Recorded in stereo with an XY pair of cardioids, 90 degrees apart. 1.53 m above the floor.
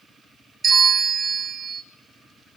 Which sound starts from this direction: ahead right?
A bell, at 0.6 s.